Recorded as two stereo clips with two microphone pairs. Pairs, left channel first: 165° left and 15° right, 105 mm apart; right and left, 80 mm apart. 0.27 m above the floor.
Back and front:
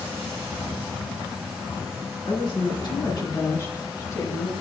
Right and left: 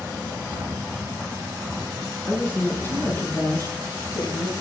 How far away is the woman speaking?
About 2.5 m.